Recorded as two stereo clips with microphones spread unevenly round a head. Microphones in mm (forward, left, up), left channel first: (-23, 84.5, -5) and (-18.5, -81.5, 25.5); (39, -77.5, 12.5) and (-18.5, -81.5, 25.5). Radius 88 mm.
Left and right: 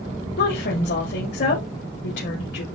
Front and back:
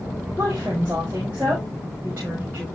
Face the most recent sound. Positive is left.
turn(degrees=105)